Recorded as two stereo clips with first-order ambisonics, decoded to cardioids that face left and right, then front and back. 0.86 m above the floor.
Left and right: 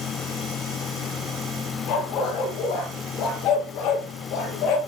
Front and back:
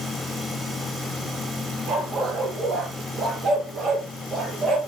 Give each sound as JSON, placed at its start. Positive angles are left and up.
{"t": 1.9, "sound": "a dog barking", "azimuth_deg": 125, "distance_m": 6.0}